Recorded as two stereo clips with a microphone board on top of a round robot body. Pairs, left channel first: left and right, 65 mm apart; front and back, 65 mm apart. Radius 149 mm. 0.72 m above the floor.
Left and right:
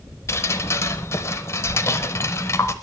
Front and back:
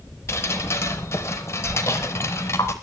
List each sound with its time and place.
0.3 s dripping: 55° left, 0.6 m